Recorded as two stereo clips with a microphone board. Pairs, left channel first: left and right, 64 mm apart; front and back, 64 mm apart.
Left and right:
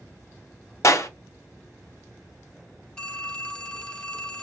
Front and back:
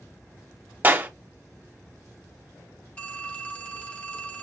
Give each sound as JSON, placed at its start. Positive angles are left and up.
{"t": 0.8, "sound": "a clap", "azimuth_deg": 125, "distance_m": 0.5}
{"t": 3.0, "sound": "a phone ringing", "azimuth_deg": 35, "distance_m": 0.6}